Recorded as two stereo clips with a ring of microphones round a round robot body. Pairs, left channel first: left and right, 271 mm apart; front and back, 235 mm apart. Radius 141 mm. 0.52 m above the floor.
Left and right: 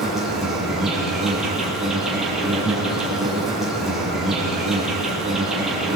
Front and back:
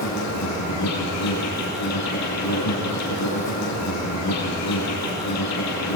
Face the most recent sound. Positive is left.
turn(degrees=0)